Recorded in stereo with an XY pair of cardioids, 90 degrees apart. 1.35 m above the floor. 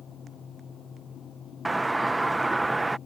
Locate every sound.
0.0 s a fan: 60° left
1.6 s a doorbell: 15° right